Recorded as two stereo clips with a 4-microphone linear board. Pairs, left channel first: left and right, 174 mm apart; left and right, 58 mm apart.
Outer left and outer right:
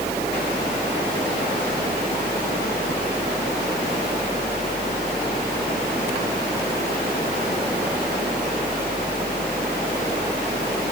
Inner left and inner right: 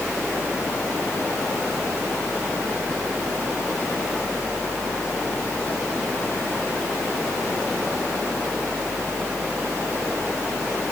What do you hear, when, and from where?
Only background noise.